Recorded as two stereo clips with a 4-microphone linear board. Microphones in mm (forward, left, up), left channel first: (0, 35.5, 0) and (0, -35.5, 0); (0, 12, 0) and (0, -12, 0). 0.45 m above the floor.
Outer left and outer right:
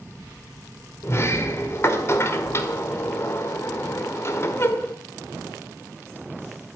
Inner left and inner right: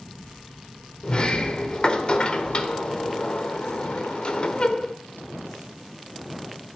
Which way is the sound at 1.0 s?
40° left (ahead or behind).